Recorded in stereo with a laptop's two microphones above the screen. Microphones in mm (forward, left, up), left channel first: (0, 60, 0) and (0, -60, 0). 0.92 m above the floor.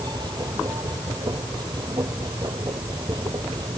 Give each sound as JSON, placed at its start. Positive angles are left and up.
{"t": 0.0, "sound": "a machine running", "side_deg": -35}